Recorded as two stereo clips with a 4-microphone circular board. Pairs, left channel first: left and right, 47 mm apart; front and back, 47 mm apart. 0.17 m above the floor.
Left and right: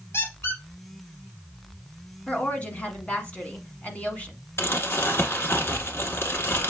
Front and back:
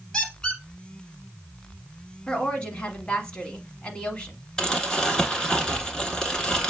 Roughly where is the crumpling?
Left.